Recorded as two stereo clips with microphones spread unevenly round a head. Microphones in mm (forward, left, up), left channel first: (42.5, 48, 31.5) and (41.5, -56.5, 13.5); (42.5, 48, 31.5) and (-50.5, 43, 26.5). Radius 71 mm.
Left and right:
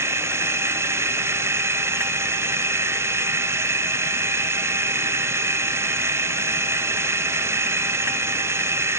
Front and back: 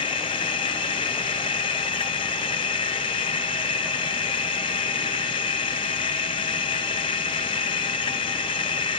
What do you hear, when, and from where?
0.0 s a machine running: 25° right, 1.1 m